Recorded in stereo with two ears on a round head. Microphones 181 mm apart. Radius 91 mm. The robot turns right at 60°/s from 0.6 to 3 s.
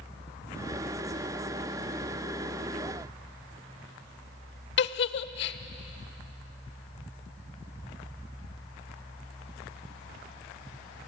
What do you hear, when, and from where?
4.8 s a giggle: 60° left (ahead or behind), 0.8 m